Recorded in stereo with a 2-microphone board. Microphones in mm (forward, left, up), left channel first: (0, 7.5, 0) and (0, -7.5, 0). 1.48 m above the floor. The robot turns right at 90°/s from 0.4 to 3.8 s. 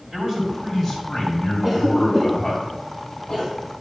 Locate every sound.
0.1 s a man speaking: 50° right, 5.5 m; by 2.6 s 150° left, 5.5 m
1.6 s a cough: 25° right (ahead or behind), 4.5 m; by 3.5 s 35° left (ahead or behind), 4.5 m